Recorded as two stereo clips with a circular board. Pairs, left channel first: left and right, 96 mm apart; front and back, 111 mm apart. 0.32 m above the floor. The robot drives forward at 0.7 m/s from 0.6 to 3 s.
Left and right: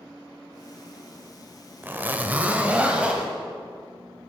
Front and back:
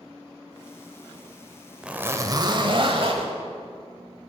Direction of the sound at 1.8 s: 110° right.